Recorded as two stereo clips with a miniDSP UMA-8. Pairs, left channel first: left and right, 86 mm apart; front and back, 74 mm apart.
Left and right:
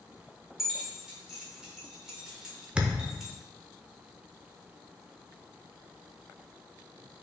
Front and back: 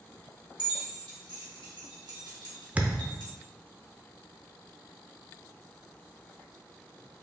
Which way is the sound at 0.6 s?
175° right.